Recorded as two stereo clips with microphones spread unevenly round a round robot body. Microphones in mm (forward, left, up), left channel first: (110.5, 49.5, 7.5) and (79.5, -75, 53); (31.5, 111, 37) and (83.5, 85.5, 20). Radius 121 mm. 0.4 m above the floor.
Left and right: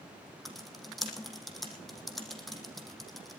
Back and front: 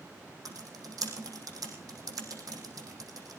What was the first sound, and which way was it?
Typing on a keyboard, 15° right.